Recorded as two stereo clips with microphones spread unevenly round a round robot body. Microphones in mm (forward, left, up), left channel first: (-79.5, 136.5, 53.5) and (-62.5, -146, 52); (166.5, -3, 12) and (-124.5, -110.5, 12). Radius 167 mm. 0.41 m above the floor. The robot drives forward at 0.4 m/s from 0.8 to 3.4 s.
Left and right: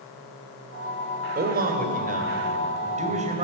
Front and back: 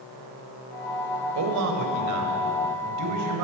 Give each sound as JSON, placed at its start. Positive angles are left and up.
{"t": 1.4, "sound": "a man speaking", "azimuth_deg": -140, "distance_m": 2.5}